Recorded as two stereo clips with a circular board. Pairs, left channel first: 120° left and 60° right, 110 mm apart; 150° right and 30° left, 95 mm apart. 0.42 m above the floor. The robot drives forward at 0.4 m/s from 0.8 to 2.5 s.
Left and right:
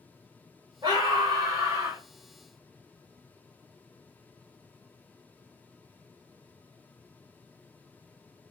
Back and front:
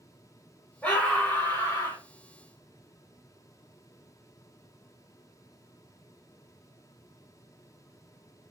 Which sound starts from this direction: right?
A scream, at 0.8 s.